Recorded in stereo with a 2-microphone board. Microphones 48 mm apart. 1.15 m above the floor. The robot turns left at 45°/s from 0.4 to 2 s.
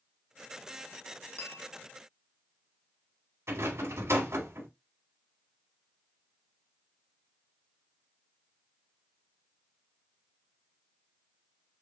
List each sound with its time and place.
1.4 s a bell: 35° left (ahead or behind), 1.1 m; by 1.7 s 40° left (ahead or behind), 1.1 m
3.5 s a rattle: 80° right, 2.5 m